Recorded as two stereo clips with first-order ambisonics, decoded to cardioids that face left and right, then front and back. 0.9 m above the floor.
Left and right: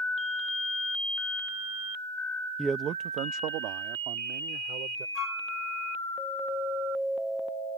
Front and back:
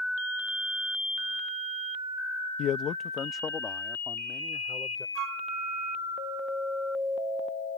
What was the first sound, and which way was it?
A man speaking, 5° right.